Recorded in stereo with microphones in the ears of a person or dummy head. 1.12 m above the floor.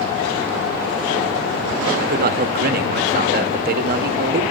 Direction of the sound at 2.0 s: 50° right (ahead or behind).